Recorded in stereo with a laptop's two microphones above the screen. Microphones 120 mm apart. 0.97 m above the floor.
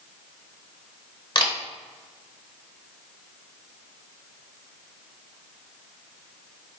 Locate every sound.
1.4 s a camera shutter: 45° left (ahead or behind), 1.0 m